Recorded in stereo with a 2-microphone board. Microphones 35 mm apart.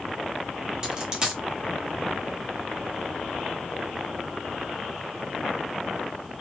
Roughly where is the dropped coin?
Right.